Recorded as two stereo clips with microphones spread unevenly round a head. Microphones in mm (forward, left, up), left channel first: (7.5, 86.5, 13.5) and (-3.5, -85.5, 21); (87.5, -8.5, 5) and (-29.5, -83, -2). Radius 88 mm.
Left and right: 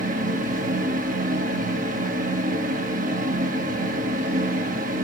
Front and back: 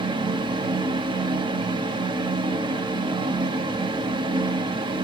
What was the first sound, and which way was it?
A fan, 105° right.